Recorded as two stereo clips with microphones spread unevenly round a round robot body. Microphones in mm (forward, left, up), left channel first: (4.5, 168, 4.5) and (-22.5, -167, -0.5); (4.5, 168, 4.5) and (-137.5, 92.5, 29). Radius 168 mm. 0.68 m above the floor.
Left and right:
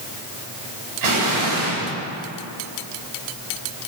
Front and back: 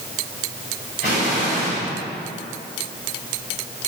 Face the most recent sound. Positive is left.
turn(degrees=-85)